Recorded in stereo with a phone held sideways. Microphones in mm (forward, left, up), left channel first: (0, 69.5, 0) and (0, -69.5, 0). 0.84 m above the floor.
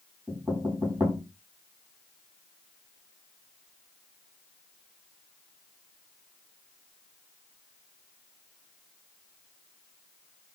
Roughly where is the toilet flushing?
No toilet flushing in this recording.